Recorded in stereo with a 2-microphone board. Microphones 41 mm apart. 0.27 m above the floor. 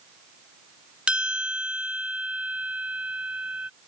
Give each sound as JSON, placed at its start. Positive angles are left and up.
{"t": 1.1, "sound": "a bell", "side_deg": -20}